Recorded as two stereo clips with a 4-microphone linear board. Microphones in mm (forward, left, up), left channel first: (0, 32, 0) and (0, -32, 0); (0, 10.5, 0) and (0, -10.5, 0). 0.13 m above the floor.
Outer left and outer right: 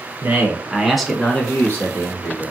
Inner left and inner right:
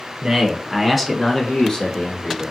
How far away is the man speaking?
About 1.3 m.